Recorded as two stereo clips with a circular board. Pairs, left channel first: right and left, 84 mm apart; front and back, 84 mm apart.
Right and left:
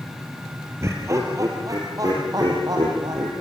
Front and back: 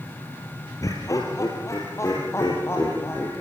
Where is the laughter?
40° left, 3 m; by 3.3 s 55° left, 5.5 m.